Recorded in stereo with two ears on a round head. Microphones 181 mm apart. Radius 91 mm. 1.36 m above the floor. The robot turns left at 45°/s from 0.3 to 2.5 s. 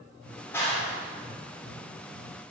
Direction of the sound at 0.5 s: 10° left (ahead or behind).